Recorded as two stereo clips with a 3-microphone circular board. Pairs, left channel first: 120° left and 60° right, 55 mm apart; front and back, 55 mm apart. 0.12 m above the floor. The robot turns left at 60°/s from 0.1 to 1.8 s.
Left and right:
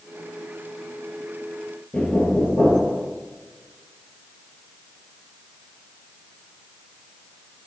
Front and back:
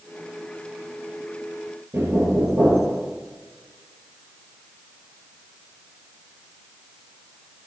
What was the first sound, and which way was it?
Knocking, 175° left.